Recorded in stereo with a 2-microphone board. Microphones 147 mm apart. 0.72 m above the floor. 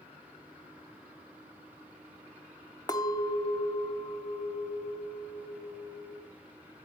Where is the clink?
25° left (ahead or behind), 0.9 m.